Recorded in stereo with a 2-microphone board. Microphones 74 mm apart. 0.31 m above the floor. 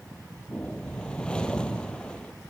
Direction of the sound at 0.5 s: 15° left (ahead or behind).